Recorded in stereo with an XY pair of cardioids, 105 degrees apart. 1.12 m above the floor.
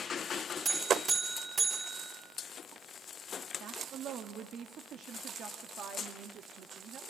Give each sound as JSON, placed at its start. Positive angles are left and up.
{"t": 0.7, "sound": "a buzzer", "azimuth_deg": -40, "distance_m": 4.5}
{"t": 3.6, "sound": "a woman speaking", "azimuth_deg": -60, "distance_m": 1.6}